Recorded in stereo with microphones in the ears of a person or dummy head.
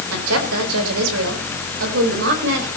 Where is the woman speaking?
90° right, 4.5 m; by 2.7 s 65° right (ahead or behind), 5 m.